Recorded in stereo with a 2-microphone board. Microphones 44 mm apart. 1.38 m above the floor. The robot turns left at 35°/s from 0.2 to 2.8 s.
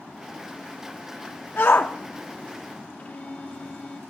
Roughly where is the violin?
Left.